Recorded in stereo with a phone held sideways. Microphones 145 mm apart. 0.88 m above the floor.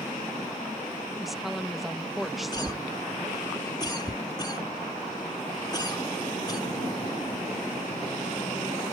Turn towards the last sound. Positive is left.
turn(degrees=30)  # may be behind; listen again after turning